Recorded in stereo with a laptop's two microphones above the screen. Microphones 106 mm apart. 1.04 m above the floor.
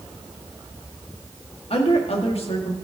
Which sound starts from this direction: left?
A woman speaking, at 1.7 s.